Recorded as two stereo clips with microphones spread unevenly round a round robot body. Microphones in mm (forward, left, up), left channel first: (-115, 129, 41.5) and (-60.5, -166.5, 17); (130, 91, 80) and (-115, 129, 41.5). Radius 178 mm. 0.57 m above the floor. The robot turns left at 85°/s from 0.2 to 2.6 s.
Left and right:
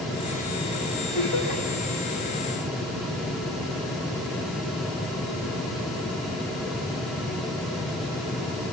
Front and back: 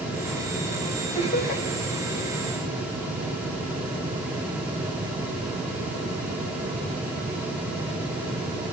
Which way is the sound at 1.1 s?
65° left.